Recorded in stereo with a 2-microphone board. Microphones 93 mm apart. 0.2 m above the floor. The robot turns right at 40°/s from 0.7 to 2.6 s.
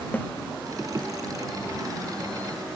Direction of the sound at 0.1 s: 20° left (ahead or behind).